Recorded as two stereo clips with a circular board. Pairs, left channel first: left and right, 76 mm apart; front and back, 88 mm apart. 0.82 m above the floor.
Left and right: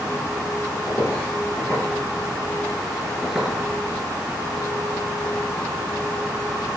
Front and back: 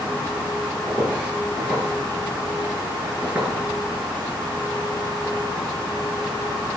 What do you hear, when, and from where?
0.9 s footsteps: 110° left, 1.5 m; by 3.5 s 145° right, 0.8 m